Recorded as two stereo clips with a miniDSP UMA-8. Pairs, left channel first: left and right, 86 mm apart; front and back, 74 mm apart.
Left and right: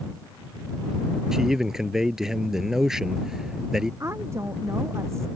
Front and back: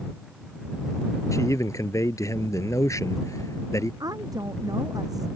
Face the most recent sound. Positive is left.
turn(degrees=-145)